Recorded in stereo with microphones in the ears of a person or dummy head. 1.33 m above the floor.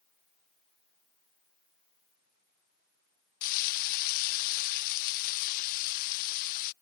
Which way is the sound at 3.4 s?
50° left (ahead or behind).